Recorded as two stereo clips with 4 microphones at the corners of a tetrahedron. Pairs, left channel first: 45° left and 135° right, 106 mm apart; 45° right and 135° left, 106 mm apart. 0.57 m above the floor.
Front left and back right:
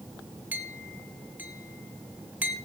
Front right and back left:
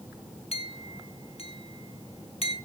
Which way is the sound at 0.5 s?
60° right.